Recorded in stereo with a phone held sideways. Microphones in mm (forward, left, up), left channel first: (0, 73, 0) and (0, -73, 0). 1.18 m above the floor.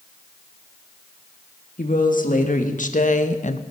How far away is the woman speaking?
About 2 m.